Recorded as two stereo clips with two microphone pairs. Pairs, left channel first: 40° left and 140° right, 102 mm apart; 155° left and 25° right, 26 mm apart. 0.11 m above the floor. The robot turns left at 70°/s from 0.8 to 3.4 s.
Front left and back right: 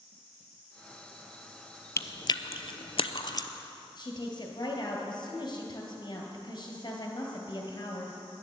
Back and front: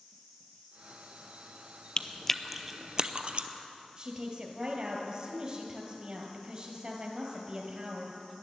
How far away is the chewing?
About 0.5 m.